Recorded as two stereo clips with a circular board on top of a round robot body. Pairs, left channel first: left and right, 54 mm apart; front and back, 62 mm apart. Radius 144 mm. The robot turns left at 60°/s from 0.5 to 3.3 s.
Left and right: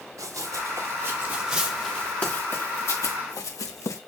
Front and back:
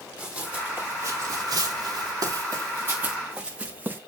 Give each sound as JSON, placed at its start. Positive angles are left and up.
{"t": 0.2, "sound": "running footsteps", "azimuth_deg": -115, "distance_m": 6.5}